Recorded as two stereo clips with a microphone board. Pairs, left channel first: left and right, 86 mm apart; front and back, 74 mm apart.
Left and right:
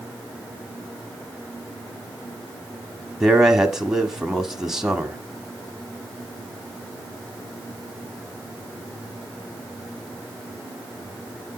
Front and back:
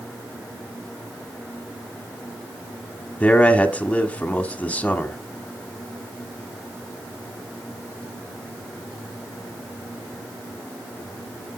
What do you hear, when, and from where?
3.2 s a man speaking: 15° right, 1.0 m